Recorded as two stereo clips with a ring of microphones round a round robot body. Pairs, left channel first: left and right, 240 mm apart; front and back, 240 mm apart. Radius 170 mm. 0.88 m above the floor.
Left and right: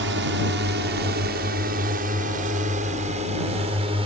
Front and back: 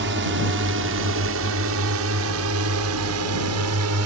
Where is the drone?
135° right; by 4.1 s 165° right.